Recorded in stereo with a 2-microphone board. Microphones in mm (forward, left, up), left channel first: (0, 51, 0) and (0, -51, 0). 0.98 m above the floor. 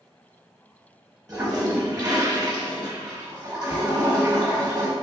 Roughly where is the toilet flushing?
Right.